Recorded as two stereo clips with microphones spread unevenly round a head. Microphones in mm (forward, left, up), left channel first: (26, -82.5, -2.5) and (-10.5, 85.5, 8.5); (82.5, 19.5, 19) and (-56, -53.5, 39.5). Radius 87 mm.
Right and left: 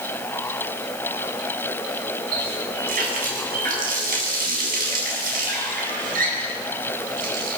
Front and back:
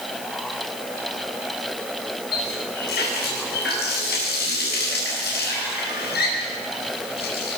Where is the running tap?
60° left, 9 m.